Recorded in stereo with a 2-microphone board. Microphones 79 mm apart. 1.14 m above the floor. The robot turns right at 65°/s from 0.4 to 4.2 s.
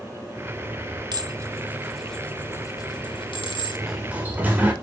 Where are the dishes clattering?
60° right (ahead or behind), 1.7 m; by 3.9 s 60° left (ahead or behind), 1.7 m.